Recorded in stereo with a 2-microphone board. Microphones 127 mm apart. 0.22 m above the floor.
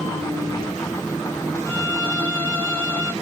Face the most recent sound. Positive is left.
turn(degrees=10)  # may be behind; listen again after turning